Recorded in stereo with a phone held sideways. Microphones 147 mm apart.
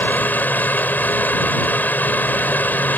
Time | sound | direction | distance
0.0 | a fan | 15° left (ahead or behind) | ?